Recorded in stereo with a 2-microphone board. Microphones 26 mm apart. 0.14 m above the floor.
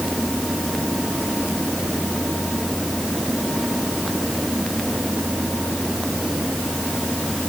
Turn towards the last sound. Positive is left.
No sound to turn to.